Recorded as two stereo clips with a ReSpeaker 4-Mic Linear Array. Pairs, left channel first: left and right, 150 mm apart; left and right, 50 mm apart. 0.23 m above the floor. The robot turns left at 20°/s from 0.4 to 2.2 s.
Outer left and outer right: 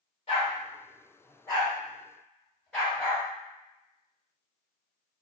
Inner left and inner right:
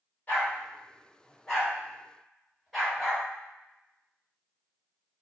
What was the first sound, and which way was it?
A dog barking, 40° left (ahead or behind).